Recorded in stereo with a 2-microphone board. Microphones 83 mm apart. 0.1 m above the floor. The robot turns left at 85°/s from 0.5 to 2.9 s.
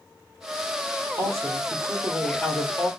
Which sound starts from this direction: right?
A woman speaking, at 1.2 s.